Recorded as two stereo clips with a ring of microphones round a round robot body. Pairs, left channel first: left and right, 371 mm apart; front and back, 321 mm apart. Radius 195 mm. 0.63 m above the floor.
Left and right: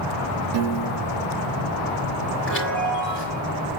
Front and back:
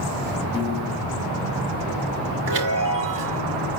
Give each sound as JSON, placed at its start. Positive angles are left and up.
{"t": 0.5, "sound": "a piano", "azimuth_deg": -70, "distance_m": 1.0}
{"t": 2.5, "sound": "a chime", "azimuth_deg": 150, "distance_m": 5.0}